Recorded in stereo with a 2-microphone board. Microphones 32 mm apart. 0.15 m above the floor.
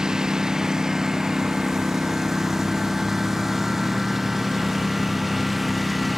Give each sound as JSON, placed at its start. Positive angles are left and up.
{"t": 0.0, "sound": "a lawn mower", "side_deg": -25}